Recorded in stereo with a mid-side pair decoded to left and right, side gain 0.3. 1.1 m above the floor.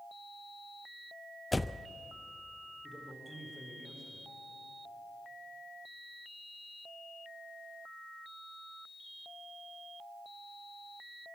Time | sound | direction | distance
1.5 | a door slam | 25° left | 0.5 m
2.8 | a man speaking | 10° left | 4.5 m